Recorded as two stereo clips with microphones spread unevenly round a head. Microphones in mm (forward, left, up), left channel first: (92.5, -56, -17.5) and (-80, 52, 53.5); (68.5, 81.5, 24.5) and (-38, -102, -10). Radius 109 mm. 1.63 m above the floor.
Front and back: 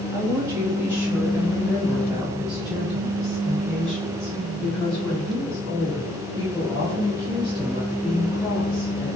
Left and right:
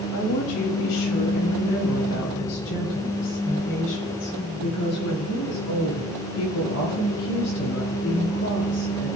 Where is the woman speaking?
75° left, 3.5 m; by 9.1 s 45° left, 11 m.